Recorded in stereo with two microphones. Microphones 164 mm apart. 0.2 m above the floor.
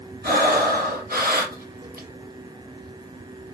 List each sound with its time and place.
0.2 s breathing: 70° right (ahead or behind), 2 m